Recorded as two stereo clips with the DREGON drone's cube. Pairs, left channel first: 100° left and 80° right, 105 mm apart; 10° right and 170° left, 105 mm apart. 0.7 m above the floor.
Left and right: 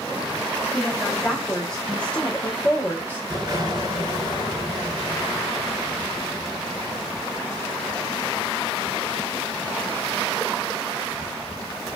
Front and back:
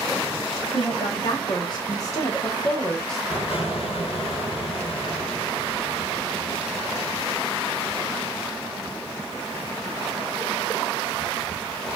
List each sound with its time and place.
0.7 s a woman speaking: 10° left, 1.6 m; by 3.2 s 80° left, 0.9 m
3.3 s an explosion: 30° right, 2 m